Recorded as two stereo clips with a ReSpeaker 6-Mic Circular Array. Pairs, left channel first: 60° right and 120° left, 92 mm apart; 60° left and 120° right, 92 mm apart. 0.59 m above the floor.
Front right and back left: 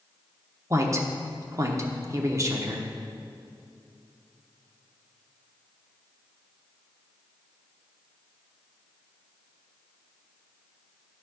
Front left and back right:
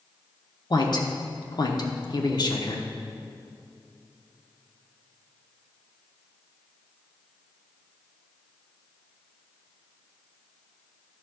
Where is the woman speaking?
75° left, 0.9 m.